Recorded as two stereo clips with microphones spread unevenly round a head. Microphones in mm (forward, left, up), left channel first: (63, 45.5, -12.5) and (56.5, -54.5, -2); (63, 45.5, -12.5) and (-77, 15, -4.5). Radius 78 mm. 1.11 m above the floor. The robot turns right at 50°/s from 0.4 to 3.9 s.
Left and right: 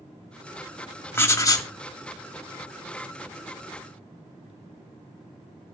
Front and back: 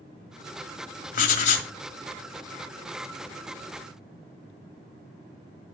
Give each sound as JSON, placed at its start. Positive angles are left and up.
{"t": 1.1, "sound": "writing", "azimuth_deg": 20, "distance_m": 1.4}